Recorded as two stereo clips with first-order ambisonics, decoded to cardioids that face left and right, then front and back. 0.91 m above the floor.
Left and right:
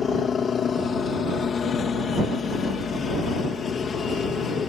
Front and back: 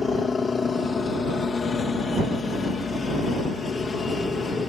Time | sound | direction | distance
0.0 | a helicopter | 50° left | ?